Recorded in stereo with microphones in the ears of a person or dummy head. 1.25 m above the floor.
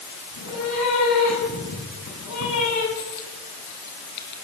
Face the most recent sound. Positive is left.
turn(degrees=50)  # may be behind; listen again after turning